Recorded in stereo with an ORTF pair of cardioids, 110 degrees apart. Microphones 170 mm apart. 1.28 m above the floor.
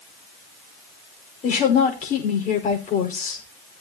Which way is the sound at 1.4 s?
50° left.